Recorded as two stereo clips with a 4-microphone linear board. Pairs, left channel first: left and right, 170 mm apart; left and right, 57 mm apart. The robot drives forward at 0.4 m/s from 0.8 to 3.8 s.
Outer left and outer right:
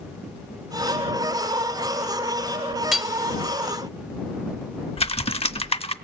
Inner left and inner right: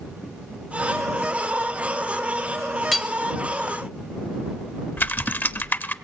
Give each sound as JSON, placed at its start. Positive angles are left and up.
{"t": 2.9, "sound": "hammering", "side_deg": 0, "distance_m": 1.0}
{"t": 5.0, "sound": "typing on a keyboard", "side_deg": 35, "distance_m": 0.6}